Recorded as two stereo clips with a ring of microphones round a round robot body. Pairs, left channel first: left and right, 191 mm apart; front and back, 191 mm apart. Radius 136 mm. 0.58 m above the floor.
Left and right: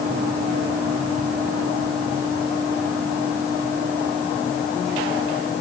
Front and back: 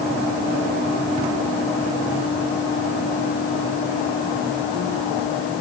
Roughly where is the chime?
No chime in this recording.